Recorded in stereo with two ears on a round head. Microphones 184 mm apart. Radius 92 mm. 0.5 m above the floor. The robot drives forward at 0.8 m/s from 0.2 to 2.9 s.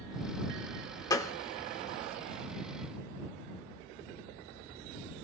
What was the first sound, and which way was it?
A gunshot, 20° left (ahead or behind).